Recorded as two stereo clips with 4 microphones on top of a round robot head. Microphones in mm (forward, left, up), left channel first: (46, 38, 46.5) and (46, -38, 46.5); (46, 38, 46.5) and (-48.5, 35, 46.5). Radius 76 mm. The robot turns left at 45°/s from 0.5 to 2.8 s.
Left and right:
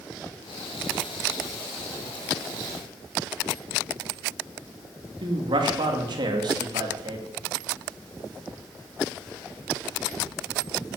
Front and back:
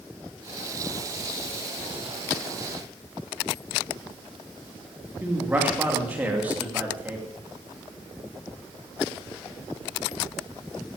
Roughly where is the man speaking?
Right.